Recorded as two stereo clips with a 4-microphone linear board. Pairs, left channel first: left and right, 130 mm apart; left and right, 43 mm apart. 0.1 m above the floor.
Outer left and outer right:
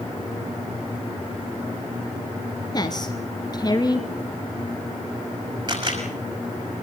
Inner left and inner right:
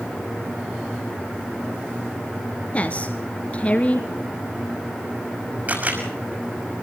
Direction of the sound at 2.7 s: 30° left (ahead or behind).